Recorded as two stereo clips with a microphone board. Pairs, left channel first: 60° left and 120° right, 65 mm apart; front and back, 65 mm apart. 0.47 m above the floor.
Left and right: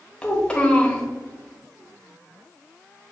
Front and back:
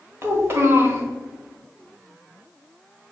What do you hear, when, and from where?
0.2 s a child speaking: 135° left, 1.1 m